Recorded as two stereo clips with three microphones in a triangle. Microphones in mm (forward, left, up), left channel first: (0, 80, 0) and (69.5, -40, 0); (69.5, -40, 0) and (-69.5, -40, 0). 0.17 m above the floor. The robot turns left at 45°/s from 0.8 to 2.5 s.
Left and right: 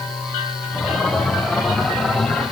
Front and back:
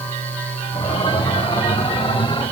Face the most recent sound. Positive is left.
No sound to turn to.